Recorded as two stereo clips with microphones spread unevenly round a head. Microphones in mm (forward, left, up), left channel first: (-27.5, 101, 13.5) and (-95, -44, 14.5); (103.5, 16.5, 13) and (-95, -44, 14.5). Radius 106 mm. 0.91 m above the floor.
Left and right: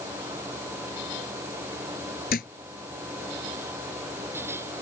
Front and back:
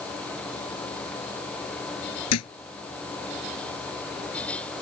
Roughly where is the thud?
Ahead.